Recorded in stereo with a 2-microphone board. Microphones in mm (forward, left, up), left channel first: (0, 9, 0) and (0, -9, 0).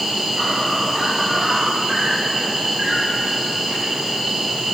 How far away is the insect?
About 9 m.